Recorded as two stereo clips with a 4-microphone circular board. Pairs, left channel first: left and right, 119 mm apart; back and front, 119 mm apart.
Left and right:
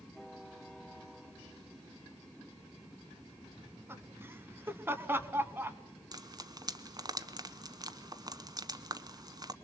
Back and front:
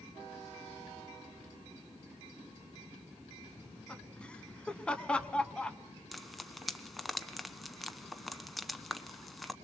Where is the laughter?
120° right, 1.1 m.